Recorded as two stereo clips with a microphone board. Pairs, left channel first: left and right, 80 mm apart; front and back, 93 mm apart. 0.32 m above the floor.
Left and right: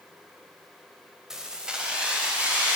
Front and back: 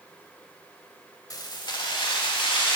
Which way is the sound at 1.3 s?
10° right.